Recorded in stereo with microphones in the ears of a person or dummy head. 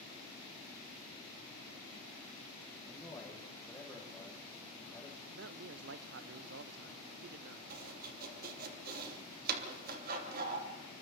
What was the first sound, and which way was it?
A man speaking, 10° left (ahead or behind).